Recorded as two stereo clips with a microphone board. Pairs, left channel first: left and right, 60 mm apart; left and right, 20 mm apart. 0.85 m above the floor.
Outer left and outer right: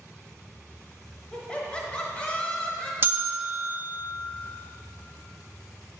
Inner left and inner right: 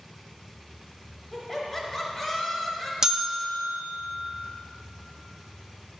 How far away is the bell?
About 0.5 m.